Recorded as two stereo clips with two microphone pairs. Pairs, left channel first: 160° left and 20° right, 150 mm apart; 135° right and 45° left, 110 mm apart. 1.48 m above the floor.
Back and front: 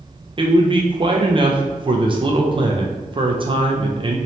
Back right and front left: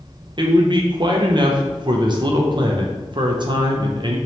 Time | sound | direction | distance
0.4 | a man speaking | 30° left | 0.5 m